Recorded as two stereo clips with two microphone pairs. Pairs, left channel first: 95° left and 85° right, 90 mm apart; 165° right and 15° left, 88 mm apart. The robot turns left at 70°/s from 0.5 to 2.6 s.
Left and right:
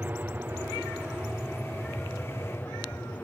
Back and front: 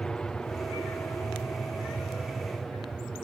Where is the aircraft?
100° right; by 3.2 s 115° left.